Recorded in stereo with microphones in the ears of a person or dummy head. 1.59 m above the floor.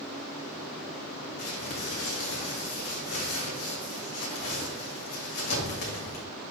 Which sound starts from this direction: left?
Crumpling, at 1.4 s.